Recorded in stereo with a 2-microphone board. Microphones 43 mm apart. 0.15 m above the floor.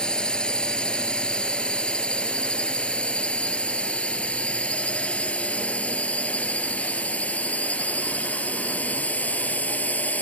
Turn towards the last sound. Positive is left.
turn(degrees=40)  # may be behind; listen again after turning